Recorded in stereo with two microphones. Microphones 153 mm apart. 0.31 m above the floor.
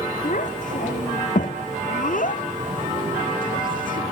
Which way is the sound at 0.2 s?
55° left (ahead or behind).